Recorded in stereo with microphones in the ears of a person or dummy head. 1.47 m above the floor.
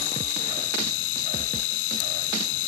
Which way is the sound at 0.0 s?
80° left.